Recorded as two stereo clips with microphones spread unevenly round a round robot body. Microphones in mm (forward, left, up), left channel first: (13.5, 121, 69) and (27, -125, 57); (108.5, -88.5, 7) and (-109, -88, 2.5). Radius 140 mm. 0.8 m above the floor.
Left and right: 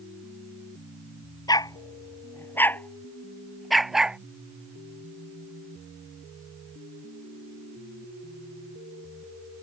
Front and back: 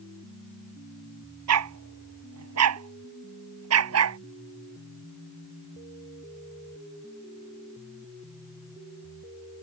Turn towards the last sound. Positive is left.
turn(degrees=-175)